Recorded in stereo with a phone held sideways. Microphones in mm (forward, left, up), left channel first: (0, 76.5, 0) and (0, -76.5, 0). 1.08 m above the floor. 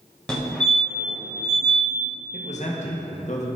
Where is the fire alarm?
5° left (ahead or behind), 1.9 m.